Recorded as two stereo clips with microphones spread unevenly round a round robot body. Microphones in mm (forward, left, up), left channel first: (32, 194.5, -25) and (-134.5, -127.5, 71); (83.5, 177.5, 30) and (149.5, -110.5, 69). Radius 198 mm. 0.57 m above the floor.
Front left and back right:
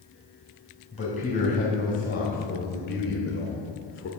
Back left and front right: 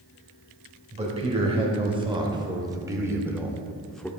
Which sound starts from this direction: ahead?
A man speaking, at 0.9 s.